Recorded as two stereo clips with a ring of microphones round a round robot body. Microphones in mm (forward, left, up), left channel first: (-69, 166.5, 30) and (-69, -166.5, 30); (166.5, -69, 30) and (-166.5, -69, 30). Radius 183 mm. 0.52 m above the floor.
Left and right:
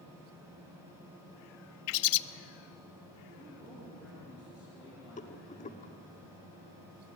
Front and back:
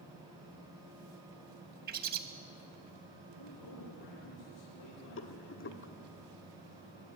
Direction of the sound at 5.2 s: 30° left.